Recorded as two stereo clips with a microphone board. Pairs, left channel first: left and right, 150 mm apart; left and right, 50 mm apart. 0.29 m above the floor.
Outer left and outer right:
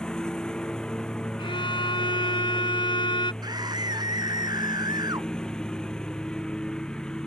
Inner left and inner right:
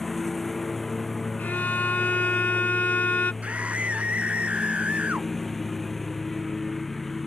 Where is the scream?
25° right (ahead or behind).